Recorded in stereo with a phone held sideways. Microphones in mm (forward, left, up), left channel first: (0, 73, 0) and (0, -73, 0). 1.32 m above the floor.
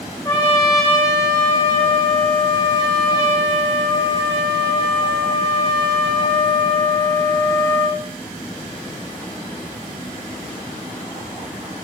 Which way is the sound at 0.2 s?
20° left (ahead or behind).